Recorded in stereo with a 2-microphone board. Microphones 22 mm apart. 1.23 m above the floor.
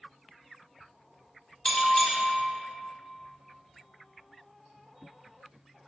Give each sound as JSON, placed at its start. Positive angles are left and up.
{"t": 1.6, "sound": "a bell", "side_deg": 45, "distance_m": 0.7}